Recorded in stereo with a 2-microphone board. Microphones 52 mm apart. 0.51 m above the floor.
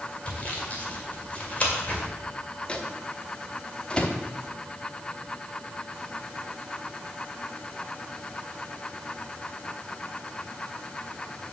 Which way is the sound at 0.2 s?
30° left (ahead or behind).